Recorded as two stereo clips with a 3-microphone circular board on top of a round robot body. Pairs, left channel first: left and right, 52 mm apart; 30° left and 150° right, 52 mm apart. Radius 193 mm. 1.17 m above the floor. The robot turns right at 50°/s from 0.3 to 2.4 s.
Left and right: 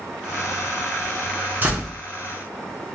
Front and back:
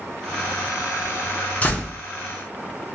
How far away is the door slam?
About 0.6 m.